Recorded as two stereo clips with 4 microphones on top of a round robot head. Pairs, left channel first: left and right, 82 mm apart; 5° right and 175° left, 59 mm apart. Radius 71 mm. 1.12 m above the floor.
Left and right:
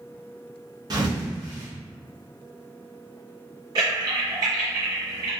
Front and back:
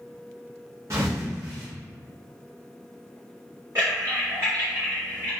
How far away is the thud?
About 0.6 m.